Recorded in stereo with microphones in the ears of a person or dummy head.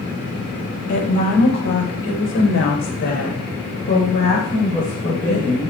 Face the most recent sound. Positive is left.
turn(degrees=15)  # may be behind; listen again after turning